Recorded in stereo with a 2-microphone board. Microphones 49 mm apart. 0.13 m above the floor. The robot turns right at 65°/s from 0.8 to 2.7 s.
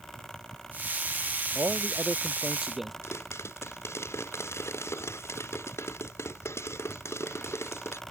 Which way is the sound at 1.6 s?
85° right.